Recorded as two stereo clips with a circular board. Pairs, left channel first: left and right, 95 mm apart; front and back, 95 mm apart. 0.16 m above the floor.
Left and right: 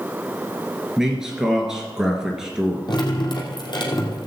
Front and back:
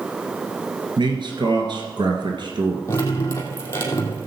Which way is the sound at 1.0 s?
175° right.